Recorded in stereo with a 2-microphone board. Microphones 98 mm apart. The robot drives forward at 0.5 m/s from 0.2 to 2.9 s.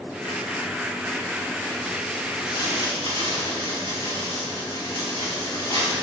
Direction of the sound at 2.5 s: 55° left (ahead or behind).